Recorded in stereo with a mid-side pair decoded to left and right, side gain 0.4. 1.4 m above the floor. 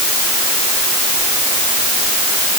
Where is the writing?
I don't hear writing.